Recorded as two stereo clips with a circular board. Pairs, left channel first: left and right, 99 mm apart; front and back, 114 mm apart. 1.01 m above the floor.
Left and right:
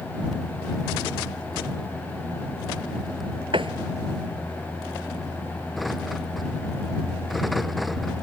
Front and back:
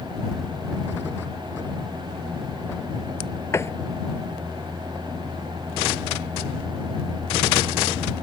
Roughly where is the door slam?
Ahead right.